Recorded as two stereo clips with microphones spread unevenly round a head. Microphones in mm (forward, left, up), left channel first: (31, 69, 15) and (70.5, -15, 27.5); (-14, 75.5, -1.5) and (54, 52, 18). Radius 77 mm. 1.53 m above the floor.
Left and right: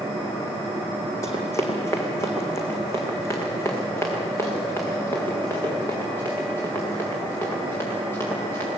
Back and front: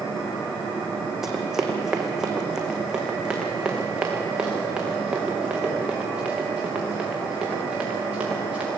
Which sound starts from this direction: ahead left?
Running footsteps, at 1.2 s.